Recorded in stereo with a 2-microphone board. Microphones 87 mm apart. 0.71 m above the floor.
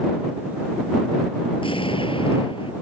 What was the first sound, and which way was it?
An explosion, 90° left.